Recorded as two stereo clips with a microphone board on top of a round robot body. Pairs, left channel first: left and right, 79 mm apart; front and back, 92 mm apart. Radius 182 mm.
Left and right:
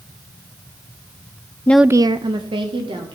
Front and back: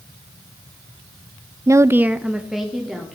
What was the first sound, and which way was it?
A woman speaking, 140° left.